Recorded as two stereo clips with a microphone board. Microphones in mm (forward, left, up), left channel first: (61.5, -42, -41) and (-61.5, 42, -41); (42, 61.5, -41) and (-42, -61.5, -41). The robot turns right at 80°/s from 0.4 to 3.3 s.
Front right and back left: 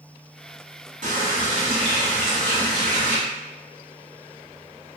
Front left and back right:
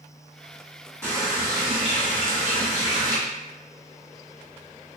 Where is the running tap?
135° left, 1.4 m; by 3.2 s 55° right, 1.4 m.